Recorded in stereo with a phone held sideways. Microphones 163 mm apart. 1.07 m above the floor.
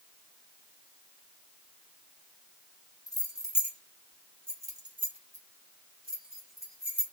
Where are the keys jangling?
25° left (ahead or behind), 1.5 m; by 7.0 s 75° right (ahead or behind), 1.7 m.